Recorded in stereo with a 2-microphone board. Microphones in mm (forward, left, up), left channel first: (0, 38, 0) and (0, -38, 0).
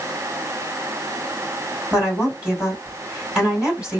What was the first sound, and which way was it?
A woman speaking, 10° right (ahead or behind).